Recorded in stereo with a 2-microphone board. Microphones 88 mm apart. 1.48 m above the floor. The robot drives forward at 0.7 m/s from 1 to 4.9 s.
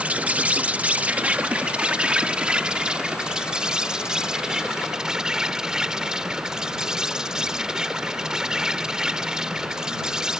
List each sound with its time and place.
0.0 s an insect: 15° right (ahead or behind); by 10.4 s 10° right (ahead or behind)